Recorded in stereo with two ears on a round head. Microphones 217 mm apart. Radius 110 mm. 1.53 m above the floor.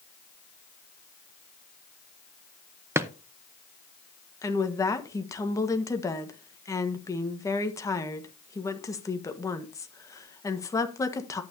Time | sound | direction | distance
3.0 | a drawer | 10° right (ahead or behind) | 0.6 m
4.4 | a woman speaking | 15° left (ahead or behind) | 1.4 m